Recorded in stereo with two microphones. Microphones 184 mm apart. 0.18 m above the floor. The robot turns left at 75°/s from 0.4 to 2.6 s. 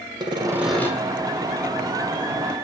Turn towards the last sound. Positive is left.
turn(degrees=40)